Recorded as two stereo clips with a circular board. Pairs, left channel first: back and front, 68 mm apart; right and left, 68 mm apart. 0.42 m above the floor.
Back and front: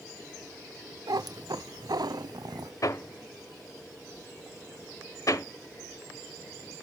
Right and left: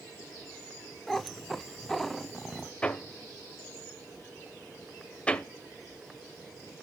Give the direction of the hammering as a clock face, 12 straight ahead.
5 o'clock.